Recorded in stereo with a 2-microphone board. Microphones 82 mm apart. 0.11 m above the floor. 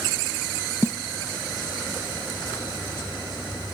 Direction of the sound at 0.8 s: 30° right (ahead or behind).